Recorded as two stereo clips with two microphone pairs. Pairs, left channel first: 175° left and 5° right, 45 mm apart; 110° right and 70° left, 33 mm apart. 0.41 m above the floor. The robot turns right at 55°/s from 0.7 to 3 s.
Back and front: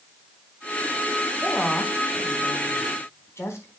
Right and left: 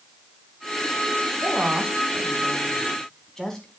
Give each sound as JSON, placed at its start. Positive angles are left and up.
{"t": 1.4, "sound": "a woman speaking", "azimuth_deg": 85, "distance_m": 4.0}